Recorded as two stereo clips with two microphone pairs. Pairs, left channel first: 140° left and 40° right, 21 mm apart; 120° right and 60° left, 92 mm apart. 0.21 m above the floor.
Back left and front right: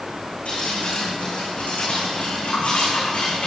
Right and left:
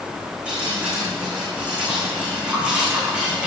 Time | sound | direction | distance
0.5 | dripping | 135° left | 8.5 m